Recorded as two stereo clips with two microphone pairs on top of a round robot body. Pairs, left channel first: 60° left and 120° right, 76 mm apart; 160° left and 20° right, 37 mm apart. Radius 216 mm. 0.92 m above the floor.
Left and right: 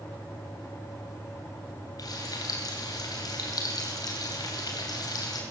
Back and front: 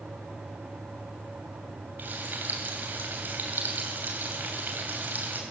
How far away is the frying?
About 3 m.